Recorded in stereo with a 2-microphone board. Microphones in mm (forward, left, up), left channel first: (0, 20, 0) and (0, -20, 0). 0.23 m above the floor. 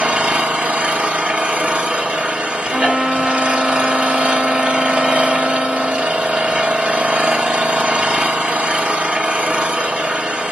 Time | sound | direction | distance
0.0 | an engine running | 30° right (ahead or behind) | 1.0 m
2.7 | a trumpet | 15° right (ahead or behind) | 1.3 m